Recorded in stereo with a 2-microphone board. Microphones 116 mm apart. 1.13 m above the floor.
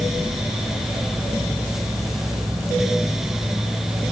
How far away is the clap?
I don't hear a clap.